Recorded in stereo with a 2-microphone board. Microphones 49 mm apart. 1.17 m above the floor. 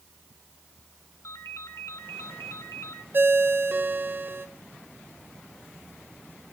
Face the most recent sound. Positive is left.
turn(degrees=-45)  # may be behind; listen again after turning